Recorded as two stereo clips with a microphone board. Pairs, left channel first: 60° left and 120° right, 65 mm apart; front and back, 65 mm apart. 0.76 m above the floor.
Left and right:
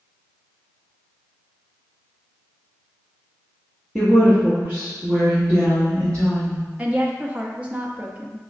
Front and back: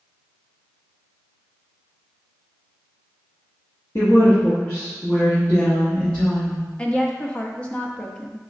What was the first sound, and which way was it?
A woman speaking, 30° right.